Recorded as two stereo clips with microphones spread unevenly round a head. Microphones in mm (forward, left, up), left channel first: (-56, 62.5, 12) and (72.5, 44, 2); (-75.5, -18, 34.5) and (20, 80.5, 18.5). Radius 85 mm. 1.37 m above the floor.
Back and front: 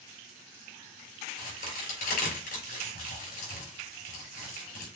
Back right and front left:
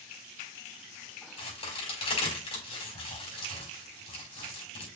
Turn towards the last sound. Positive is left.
turn(degrees=180)